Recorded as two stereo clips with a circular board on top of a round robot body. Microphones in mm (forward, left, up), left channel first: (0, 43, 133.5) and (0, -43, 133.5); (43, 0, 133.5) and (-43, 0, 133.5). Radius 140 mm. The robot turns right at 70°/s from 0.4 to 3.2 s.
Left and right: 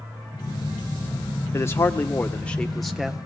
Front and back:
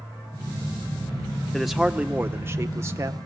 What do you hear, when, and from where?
1.5 s a man speaking: 85° left, 1.1 m; by 3.2 s 160° right, 1.1 m